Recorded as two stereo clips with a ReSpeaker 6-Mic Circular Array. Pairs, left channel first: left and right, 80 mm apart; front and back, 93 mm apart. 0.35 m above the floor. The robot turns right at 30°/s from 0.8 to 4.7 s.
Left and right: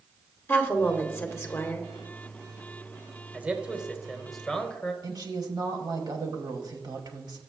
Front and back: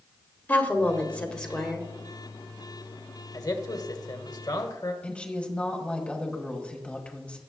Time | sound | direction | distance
0.5 | a woman speaking | 55° left | 1.3 m
3.3 | a man speaking | 25° right | 1.3 m
5.0 | a woman speaking | 75° right | 1.9 m